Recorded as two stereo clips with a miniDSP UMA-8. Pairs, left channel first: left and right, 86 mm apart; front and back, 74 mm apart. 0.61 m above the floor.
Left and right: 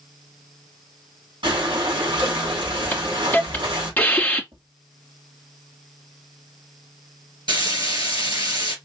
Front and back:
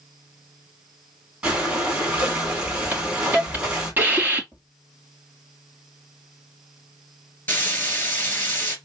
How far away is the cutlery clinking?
I don't hear cutlery clinking.